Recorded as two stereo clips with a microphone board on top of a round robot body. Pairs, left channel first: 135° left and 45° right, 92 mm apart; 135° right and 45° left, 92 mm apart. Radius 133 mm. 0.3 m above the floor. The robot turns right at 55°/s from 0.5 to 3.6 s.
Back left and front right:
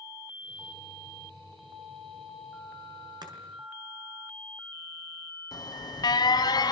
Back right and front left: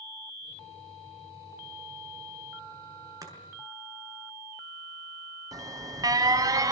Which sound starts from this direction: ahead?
Chopping, at 3.2 s.